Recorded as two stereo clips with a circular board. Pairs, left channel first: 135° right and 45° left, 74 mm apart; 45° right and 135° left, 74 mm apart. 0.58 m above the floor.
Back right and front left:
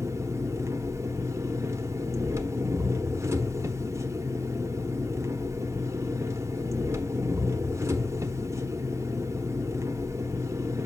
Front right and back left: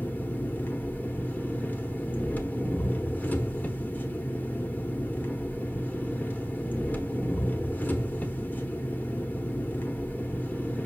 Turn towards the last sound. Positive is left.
turn(degrees=10)